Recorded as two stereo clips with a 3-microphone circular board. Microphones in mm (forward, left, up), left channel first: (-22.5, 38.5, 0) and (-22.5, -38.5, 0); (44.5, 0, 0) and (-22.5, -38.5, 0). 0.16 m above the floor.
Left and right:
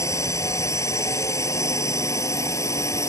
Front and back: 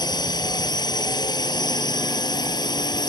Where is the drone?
45° left.